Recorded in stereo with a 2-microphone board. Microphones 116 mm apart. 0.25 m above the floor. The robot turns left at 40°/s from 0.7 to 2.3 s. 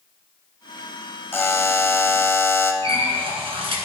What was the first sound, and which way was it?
A buzzer, 20° left (ahead or behind).